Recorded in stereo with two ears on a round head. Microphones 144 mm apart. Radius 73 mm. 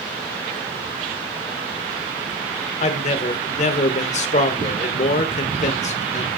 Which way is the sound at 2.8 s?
40° left (ahead or behind).